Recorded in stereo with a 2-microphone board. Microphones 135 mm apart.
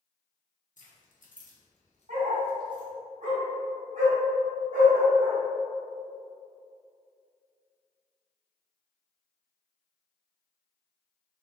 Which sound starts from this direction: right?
A dog barking, at 2.1 s.